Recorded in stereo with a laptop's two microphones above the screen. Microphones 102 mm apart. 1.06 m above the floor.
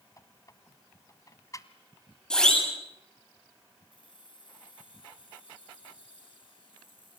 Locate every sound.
0.2 s a squeak: 35° left (ahead or behind), 1.5 m
2.3 s a siren: 10° left (ahead or behind), 8.5 m
3.9 s keys jangling: 60° left (ahead or behind), 10 m